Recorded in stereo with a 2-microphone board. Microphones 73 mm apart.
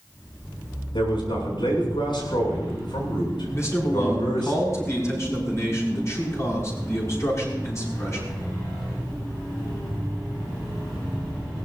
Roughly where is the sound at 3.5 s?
Left.